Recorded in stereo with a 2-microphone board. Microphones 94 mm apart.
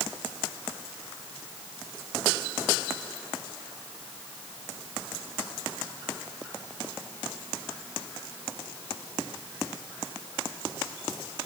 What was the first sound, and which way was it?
Only background noise.